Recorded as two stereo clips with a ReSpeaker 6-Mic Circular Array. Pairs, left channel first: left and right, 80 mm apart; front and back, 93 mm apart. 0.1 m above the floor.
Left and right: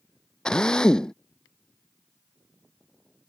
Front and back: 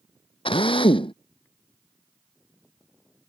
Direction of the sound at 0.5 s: 10° left.